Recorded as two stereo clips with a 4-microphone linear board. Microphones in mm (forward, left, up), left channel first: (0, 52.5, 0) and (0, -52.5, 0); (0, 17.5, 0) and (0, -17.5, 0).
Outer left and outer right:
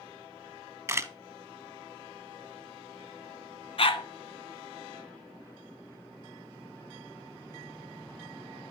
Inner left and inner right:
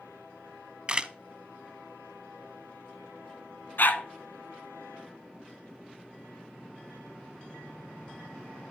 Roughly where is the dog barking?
Left.